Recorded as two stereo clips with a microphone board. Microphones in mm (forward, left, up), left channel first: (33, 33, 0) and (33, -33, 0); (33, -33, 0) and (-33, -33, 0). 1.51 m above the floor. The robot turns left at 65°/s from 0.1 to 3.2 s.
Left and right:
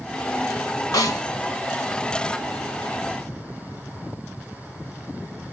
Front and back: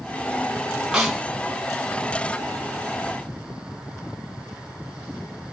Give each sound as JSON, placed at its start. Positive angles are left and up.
{"t": 0.9, "sound": "a snare drum", "azimuth_deg": 100, "distance_m": 1.1}